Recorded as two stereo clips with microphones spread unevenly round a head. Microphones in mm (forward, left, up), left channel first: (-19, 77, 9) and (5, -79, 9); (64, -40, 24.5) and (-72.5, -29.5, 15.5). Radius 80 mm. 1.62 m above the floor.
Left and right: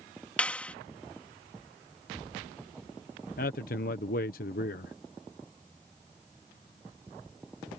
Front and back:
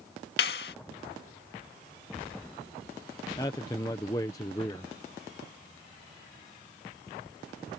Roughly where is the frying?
No frying in this recording.